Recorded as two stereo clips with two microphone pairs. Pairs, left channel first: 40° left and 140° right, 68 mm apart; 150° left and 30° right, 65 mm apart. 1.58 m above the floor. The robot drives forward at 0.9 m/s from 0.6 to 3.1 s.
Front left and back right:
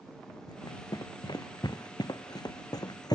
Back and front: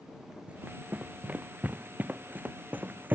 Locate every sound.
0.5 s running footsteps: 35° left; by 3.2 s 30° left